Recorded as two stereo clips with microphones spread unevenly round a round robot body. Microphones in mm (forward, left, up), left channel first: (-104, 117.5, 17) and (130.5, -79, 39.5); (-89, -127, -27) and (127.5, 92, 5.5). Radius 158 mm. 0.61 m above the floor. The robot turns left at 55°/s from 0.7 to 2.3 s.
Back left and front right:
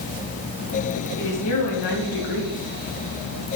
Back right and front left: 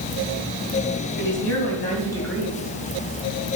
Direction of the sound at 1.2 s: 160° right.